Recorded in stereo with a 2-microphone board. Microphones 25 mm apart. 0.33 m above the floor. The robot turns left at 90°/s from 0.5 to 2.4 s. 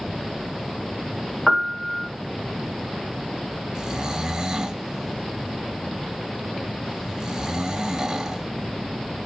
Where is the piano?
175° right, 0.6 m; by 2.1 s 125° left, 0.6 m.